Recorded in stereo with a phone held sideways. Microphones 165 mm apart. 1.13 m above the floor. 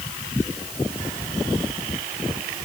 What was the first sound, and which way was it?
Only background noise.